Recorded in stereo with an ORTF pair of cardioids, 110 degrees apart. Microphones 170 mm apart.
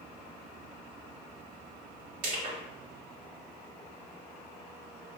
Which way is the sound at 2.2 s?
65° right.